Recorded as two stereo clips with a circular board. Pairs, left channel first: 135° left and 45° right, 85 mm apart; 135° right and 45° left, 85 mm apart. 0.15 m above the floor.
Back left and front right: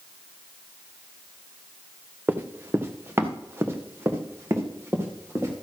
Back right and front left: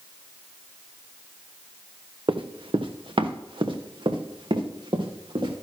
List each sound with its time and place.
2.3 s running footsteps: 20° left, 1.0 m; by 5.5 s 15° left, 3 m